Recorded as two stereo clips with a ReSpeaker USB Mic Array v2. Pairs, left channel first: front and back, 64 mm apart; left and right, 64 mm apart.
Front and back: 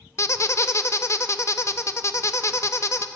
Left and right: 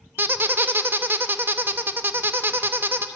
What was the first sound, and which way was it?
A squeak, 35° right.